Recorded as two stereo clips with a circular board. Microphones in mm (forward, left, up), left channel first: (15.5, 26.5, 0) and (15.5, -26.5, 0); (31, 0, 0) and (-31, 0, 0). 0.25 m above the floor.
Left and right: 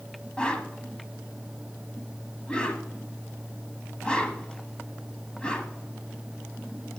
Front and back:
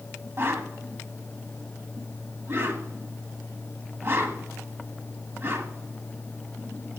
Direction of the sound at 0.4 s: 150° left.